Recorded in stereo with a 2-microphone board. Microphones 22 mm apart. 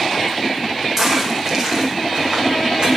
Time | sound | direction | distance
1.0 | footsteps | 20° right (ahead or behind) | 3.5 m